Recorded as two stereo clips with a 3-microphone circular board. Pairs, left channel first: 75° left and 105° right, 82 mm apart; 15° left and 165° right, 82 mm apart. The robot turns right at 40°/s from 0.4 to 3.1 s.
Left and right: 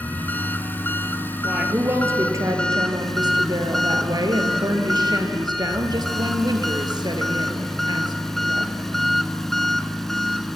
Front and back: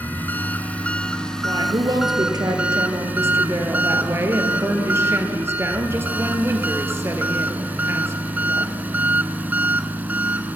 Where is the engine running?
50° left, 0.9 m; by 10.6 s 155° left, 0.9 m.